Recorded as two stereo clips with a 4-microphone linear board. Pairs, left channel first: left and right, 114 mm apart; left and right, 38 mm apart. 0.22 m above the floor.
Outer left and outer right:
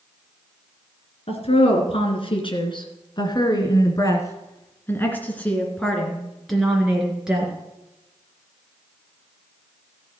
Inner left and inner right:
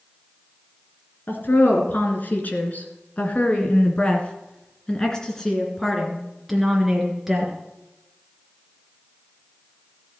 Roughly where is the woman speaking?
Left.